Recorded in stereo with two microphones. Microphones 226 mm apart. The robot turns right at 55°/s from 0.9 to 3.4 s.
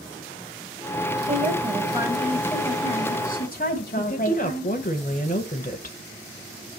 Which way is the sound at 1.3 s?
55° right.